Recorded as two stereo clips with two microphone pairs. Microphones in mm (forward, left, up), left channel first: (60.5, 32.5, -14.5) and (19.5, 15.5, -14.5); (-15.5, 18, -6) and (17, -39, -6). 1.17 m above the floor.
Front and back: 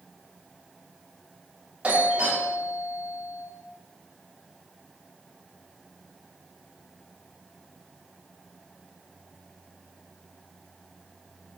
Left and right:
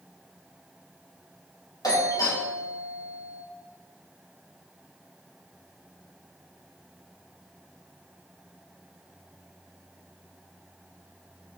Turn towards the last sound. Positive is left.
turn(degrees=140)